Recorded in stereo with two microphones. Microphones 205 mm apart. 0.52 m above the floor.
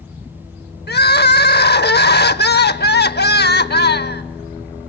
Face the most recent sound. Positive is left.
turn(degrees=55)  # may be behind; listen again after turning